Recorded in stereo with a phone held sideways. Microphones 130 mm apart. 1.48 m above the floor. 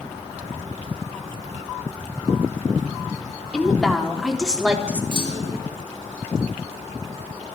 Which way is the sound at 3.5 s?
5° left (ahead or behind).